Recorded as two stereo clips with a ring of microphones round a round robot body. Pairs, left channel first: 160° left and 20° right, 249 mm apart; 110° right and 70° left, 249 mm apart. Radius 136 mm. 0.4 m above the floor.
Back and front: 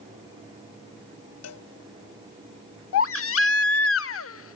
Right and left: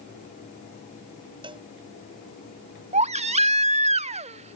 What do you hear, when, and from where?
1.4 s a cowbell: 140° left
2.9 s a baby crying: 130° left